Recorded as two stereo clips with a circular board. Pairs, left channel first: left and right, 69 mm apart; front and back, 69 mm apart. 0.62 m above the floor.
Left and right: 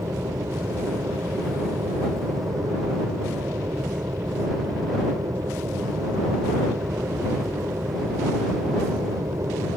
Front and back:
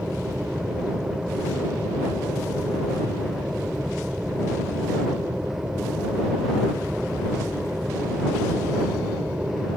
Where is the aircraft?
105° right.